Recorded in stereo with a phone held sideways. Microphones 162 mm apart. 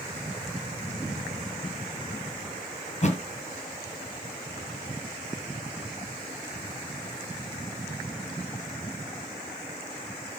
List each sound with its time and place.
2.9 s a thud: 45° left (ahead or behind), 2 m